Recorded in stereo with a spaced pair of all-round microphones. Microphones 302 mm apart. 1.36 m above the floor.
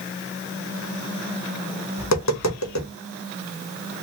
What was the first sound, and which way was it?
Tapping, 60° left (ahead or behind).